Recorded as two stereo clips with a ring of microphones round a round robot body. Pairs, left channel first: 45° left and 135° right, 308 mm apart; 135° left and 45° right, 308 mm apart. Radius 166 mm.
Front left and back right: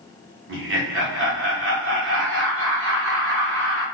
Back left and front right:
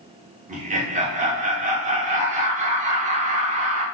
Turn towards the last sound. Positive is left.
turn(degrees=-105)